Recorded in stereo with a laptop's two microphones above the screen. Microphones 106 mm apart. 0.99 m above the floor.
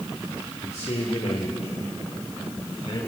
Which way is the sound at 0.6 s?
80° left.